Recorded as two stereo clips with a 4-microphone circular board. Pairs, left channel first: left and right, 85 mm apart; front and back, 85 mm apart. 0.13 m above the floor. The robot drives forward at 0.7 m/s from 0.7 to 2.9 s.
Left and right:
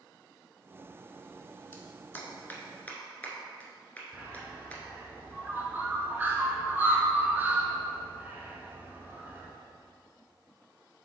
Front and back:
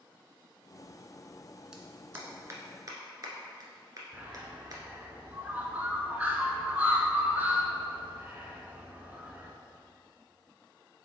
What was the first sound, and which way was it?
A clap, 110° left.